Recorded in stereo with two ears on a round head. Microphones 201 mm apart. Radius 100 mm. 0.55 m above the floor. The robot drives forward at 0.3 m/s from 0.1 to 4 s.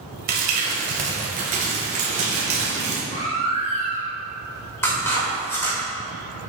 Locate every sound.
0.3 s crumpling: 45° right (ahead or behind), 1.9 m; by 3.0 s 30° right (ahead or behind), 2.5 m
3.1 s a baby crying: 35° left (ahead or behind), 2.5 m; by 4.1 s 30° left (ahead or behind), 2.5 m
4.8 s scissors: 10° left (ahead or behind), 2.5 m